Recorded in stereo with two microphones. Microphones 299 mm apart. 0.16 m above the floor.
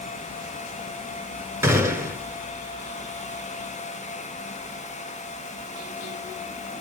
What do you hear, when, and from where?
1.6 s a gunshot: 10° right (ahead or behind), 1.2 m